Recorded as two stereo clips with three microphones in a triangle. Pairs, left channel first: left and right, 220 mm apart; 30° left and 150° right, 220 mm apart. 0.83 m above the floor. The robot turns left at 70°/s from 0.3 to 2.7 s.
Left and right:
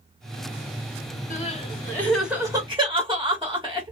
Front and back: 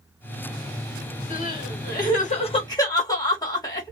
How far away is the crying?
About 1.3 m.